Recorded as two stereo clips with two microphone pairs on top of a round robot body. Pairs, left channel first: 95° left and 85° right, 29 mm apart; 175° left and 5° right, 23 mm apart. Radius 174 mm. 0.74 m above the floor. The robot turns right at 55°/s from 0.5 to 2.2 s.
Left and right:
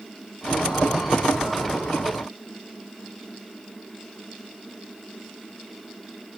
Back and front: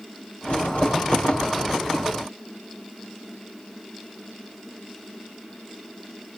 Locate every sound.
Only background noise.